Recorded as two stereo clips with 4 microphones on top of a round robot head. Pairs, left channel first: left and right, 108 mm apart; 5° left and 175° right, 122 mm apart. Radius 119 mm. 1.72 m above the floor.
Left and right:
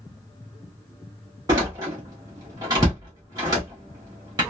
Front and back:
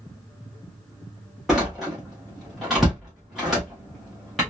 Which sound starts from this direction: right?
A door slam, at 1.5 s.